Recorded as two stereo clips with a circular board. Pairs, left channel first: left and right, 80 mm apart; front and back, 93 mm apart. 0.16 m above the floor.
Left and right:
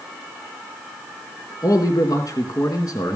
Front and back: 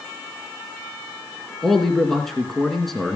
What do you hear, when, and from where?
1.6 s a man speaking: 85° left, 2.5 m